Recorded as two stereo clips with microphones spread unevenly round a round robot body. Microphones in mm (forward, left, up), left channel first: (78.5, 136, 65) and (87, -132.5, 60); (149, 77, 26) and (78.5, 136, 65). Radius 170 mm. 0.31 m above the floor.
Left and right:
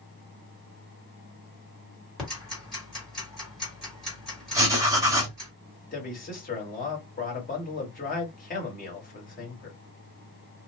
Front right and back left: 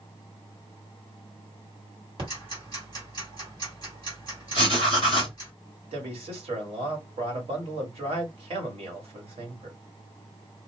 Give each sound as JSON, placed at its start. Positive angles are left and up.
{"t": 2.2, "sound": "ticking", "azimuth_deg": 180, "distance_m": 1.7}
{"t": 4.5, "sound": "writing", "azimuth_deg": -165, "distance_m": 1.3}
{"t": 5.9, "sound": "a man speaking", "azimuth_deg": 140, "distance_m": 1.7}